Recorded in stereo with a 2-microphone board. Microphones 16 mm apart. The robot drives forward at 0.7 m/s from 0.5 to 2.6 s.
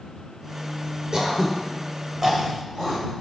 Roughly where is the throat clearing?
Right.